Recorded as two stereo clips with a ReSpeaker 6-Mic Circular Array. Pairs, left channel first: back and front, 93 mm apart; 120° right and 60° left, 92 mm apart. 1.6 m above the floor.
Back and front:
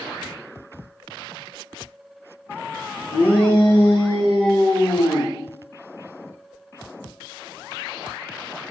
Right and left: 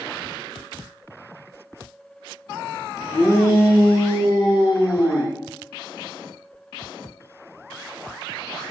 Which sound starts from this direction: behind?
A shout, at 3.1 s.